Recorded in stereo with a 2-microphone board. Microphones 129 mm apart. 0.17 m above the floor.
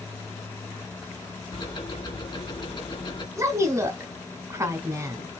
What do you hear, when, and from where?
1.5 s ticking: 35° left (ahead or behind), 1.8 m
3.4 s a woman speaking: 20° right (ahead or behind), 1.3 m